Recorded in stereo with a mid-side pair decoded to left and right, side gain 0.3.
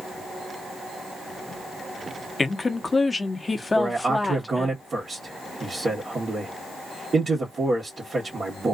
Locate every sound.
2.4 s a woman speaking: 35° left, 0.9 m
3.8 s a man speaking: 55° right, 1.3 m